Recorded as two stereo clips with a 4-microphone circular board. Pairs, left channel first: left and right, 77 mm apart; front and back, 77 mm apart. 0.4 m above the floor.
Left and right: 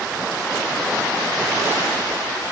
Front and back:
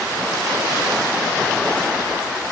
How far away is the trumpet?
No trumpet in this recording.